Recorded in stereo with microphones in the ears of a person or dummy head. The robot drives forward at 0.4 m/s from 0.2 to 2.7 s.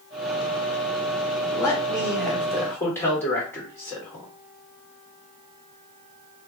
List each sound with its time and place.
1.5 s a man speaking: 15° left (ahead or behind), 1.1 m; by 4.3 s 10° left (ahead or behind), 1.6 m